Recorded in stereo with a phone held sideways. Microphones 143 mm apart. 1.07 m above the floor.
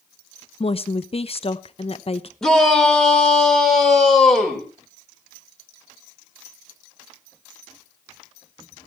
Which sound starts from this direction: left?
A woman speaking, at 0.6 s.